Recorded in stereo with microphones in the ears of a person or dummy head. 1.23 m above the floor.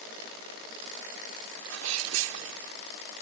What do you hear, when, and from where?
1.6 s a sneeze: 80° right